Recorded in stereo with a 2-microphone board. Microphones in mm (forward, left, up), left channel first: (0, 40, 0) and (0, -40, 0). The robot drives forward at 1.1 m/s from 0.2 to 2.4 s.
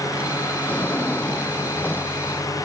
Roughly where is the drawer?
Centre.